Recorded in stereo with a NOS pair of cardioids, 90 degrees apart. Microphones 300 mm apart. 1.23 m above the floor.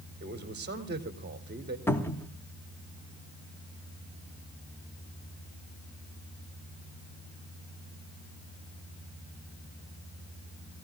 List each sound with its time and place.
0.2 s a man speaking: 35° right, 3.5 m
1.9 s a cupboard door: 10° left, 2.5 m